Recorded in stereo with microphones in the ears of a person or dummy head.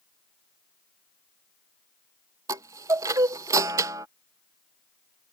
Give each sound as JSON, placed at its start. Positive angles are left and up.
{"t": 2.5, "sound": "a chime", "side_deg": -20}